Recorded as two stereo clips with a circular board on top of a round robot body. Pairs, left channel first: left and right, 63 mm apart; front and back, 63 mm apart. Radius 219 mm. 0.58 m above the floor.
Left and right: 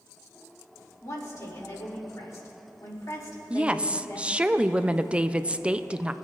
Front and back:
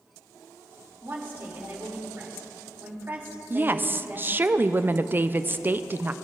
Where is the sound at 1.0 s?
125° left, 2.5 m.